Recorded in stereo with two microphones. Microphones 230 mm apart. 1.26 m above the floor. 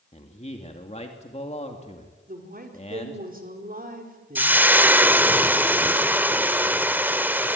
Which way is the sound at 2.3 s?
40° right (ahead or behind).